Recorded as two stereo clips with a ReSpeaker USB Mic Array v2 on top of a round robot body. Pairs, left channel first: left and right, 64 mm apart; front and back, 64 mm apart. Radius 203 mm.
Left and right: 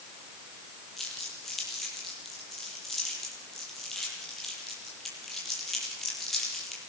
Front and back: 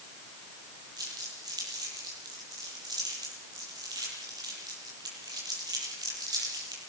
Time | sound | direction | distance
1.0 | crumpling | 175° left | 9 m